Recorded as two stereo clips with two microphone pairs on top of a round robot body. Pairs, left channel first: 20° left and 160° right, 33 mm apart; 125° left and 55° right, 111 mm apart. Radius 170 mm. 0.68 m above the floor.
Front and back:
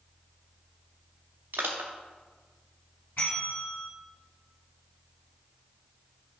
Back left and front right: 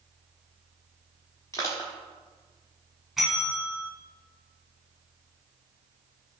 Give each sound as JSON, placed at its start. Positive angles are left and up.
{"t": 1.5, "sound": "crushing", "azimuth_deg": -165, "distance_m": 0.7}
{"t": 3.2, "sound": "a bell", "azimuth_deg": 35, "distance_m": 1.5}